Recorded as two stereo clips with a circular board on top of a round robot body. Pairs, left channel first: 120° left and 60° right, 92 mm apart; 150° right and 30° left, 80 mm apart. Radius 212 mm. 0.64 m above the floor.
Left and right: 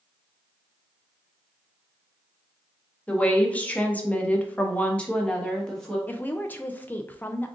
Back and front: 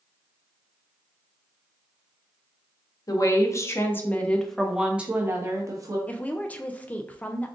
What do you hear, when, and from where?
3.1 s a woman speaking: 170° right, 1.4 m; by 6.0 s 40° left, 1.3 m
6.1 s a woman speaking: 165° left, 0.6 m